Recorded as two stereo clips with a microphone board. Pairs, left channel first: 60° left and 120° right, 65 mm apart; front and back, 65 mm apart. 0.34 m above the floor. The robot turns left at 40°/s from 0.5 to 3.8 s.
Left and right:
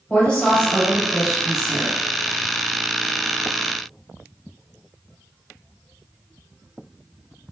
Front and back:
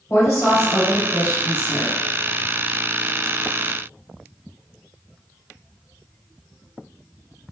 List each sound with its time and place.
0.1 s a woman speaking: 5° right, 1.4 m; by 2.0 s 65° right, 1.4 m